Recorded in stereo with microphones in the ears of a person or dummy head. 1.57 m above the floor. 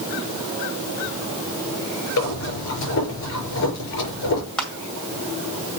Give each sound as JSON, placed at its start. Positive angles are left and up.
{"t": 2.2, "sound": "breathing", "side_deg": 75, "distance_m": 5.0}
{"t": 4.6, "sound": "crushing", "side_deg": 5, "distance_m": 2.0}